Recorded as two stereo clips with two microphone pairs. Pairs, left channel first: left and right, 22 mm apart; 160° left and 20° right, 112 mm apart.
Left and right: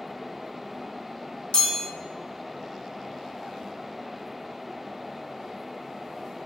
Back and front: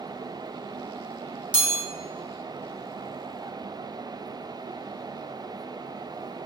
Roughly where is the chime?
Ahead left.